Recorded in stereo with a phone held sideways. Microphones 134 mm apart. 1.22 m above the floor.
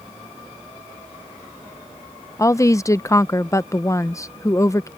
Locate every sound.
2.4 s a woman speaking: 20° left (ahead or behind)